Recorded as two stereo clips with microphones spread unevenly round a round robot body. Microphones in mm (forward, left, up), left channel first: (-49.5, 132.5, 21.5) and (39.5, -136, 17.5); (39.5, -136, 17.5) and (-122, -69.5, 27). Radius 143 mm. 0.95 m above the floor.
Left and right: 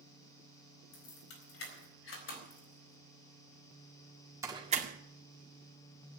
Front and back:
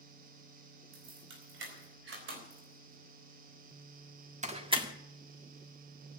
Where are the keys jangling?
150° left, 5 m; by 4.9 s 130° right, 1.8 m.